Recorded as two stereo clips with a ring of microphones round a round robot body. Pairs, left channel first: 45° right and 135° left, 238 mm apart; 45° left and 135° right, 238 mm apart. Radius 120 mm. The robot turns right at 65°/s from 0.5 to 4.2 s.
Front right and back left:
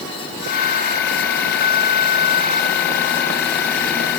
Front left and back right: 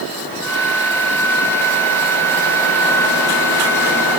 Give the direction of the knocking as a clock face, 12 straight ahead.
I don't hear knocking.